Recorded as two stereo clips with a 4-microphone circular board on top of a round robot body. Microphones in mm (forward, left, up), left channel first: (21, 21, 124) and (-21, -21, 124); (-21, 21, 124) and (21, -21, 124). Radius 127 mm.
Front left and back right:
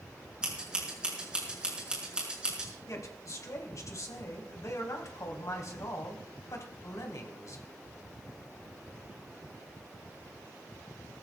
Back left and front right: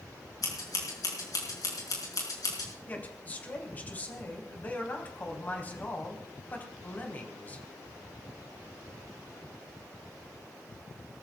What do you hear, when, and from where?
0.4 s scissors: 150° left, 6 m
2.9 s a man speaking: 75° left, 3.5 m